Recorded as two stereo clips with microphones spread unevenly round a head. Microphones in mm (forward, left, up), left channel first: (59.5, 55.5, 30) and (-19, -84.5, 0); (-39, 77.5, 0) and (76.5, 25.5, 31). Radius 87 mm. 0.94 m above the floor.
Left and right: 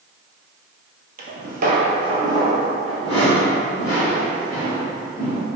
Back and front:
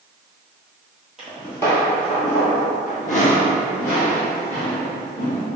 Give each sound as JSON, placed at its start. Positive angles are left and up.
{"t": 1.2, "sound": "footsteps", "azimuth_deg": -100, "distance_m": 1.3}